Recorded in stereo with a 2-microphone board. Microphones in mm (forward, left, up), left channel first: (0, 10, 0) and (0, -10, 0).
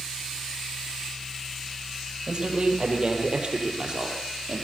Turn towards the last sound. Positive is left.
turn(degrees=-40)  # may be behind; listen again after turning